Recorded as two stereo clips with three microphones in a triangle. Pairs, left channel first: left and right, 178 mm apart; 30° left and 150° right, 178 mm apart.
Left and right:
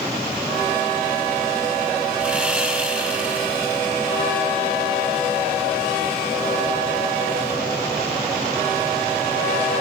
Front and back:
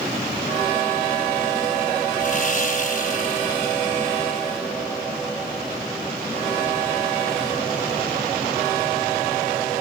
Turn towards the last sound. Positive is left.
turn(degrees=-10)